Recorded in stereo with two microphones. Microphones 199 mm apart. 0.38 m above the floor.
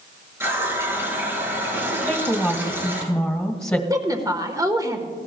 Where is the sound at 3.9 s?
20° right (ahead or behind), 1.2 m.